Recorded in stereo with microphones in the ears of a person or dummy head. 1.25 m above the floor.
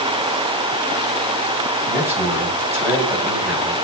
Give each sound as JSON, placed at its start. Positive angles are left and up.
{"t": 1.9, "sound": "a man speaking", "side_deg": -15, "distance_m": 5.5}